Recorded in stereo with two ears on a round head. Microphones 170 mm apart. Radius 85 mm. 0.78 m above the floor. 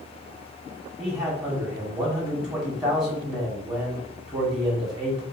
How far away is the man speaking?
About 1.9 m.